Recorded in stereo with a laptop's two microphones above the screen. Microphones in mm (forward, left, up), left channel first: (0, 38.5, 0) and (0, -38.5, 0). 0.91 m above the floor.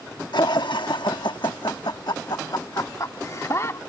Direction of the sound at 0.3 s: 70° left (ahead or behind).